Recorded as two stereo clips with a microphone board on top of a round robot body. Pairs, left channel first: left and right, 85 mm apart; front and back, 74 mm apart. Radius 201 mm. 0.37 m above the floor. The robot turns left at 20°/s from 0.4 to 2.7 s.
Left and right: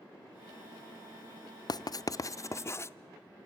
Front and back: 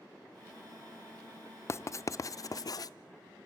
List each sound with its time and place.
1.7 s writing: 50° left, 0.6 m; by 2.9 s 30° left, 0.6 m